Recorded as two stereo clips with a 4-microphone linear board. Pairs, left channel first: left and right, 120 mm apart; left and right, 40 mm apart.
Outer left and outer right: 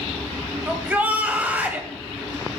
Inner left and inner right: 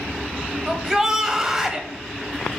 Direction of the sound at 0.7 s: 15° right (ahead or behind).